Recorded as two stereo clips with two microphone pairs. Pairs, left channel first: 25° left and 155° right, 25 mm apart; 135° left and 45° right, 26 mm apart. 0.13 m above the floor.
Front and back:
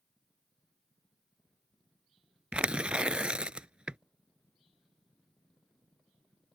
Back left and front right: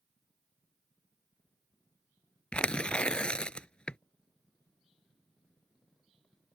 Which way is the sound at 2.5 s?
175° left.